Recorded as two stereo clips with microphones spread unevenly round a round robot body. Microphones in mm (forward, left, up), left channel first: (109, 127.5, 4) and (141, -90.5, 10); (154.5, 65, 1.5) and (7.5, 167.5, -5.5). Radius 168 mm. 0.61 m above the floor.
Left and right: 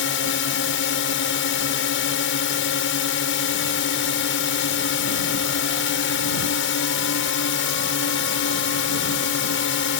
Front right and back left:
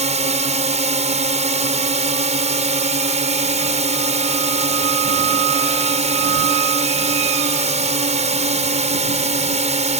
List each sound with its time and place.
0.0 s a drone: 105° left